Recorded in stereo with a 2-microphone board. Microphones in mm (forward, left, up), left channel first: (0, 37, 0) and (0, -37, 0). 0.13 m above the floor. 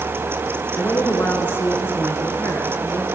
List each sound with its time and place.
0.8 s a woman speaking: 30° left (ahead or behind), 1.4 m